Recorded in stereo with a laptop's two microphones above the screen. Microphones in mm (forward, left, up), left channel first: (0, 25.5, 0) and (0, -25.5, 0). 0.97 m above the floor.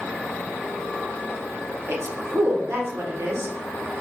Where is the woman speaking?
55° right (ahead or behind), 0.9 m.